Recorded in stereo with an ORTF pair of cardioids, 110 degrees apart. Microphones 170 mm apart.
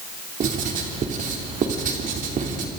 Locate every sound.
0.4 s writing: 50° right, 3 m